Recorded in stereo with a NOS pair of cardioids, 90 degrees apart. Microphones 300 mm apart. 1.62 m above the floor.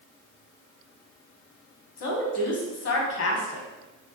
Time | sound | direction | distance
2.0 | a woman speaking | 55° left | 1.5 m